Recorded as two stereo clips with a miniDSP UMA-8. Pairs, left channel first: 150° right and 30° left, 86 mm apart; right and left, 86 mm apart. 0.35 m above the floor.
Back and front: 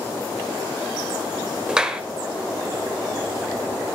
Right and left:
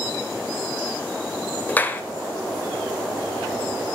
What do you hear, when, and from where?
1.7 s a clap: 40° right, 1.1 m